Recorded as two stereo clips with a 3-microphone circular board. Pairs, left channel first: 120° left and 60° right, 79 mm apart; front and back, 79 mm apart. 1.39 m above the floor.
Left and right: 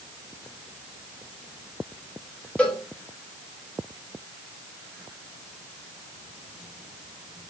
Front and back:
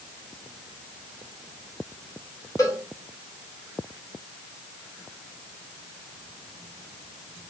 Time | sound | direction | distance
2.6 | a cowbell | 45° left | 2 m